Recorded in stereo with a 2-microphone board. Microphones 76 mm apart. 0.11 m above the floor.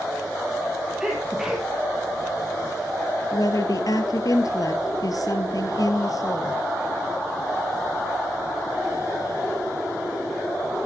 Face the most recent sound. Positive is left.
turn(degrees=55)  # may be behind; listen again after turning